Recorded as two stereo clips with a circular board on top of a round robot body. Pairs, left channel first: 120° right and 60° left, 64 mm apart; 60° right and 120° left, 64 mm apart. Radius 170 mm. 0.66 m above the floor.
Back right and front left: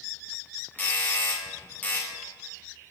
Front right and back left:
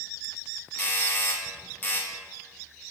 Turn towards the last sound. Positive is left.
turn(degrees=-85)